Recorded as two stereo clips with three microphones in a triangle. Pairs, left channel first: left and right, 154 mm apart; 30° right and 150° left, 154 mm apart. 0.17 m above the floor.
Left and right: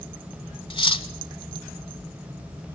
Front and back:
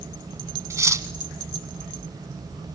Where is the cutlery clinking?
95° left, 0.9 m.